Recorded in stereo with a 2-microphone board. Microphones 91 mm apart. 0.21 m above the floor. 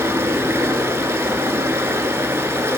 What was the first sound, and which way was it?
Running water, 30° right (ahead or behind).